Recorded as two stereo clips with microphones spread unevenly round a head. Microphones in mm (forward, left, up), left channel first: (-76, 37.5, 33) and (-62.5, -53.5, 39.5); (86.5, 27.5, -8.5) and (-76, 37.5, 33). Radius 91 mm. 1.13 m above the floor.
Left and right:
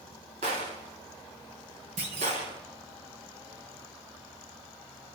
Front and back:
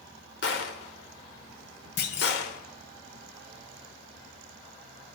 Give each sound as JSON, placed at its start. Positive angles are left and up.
{"t": 0.4, "sound": "a gunshot", "azimuth_deg": -40, "distance_m": 1.8}
{"t": 2.0, "sound": "a clunk", "azimuth_deg": -45, "distance_m": 1.9}